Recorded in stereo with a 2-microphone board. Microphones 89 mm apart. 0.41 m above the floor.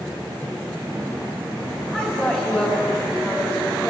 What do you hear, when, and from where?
1.9 s a woman speaking: 15° left (ahead or behind), 3 m